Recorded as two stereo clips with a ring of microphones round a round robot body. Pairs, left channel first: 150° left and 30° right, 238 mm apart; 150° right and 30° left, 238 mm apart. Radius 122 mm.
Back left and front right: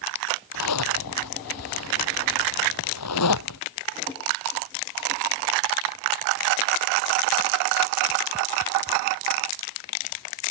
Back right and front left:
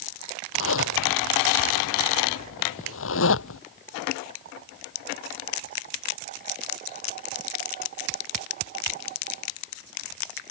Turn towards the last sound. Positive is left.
turn(degrees=170)